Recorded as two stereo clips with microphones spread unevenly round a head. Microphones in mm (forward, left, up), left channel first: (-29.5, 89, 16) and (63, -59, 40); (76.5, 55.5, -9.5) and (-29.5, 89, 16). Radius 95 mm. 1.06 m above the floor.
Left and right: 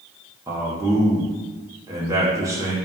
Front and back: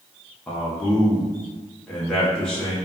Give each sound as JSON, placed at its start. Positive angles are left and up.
{"t": 0.5, "sound": "a man speaking", "azimuth_deg": 10, "distance_m": 0.7}